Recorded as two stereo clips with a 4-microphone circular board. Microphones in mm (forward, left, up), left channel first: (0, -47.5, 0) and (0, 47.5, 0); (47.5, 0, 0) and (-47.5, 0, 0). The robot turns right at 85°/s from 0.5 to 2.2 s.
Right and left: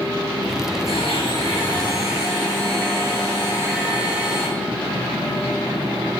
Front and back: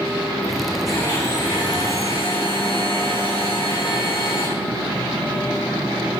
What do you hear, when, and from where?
0.9 s a blender: 85° right, 8.5 m; by 4.5 s 25° left, 8.5 m